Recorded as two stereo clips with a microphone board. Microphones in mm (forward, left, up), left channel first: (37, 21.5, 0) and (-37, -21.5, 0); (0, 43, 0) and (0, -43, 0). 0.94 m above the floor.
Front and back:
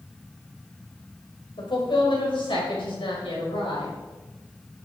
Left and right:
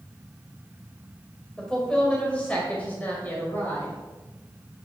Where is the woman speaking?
10° left, 5 m; by 3.9 s 25° left, 5.5 m.